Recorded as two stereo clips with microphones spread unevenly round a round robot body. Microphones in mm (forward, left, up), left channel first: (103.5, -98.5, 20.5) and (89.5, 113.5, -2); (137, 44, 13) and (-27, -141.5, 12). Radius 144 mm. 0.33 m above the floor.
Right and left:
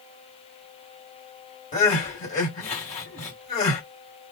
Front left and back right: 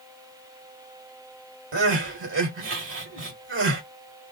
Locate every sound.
1.7 s crying: 140° right, 1.7 m